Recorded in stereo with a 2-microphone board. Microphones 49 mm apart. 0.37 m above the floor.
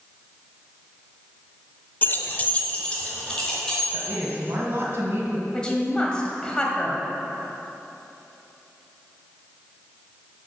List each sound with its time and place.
2.0 s keys jangling: 35° left (ahead or behind), 0.6 m; by 4.1 s 15° left (ahead or behind), 3 m
3.9 s a woman speaking: 50° right (ahead or behind), 2.5 m
5.5 s a woman speaking: 15° left (ahead or behind), 1.7 m